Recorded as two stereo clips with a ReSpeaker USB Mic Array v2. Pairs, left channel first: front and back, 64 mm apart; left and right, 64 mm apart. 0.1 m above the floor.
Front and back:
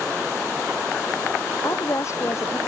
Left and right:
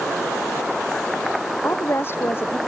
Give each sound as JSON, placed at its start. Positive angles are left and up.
{"t": 1.6, "sound": "a woman speaking", "azimuth_deg": 40}